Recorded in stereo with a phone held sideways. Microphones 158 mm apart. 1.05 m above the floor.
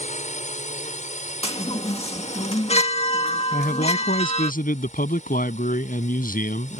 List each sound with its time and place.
0.0 s a drone: 55° left (ahead or behind)
1.4 s a chime: 45° left (ahead or behind)
3.5 s a man speaking: 70° left (ahead or behind)